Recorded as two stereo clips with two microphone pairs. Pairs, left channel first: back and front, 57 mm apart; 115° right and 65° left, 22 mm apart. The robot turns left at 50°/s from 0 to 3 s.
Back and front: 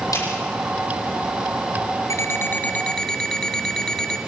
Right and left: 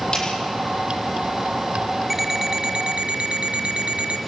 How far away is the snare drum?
About 9.5 m.